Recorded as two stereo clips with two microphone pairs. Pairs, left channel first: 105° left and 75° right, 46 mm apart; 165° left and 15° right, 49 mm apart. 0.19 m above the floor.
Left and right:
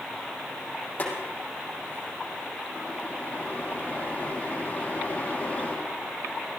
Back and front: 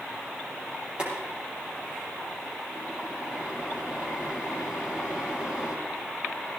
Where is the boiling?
50° left, 5.5 m.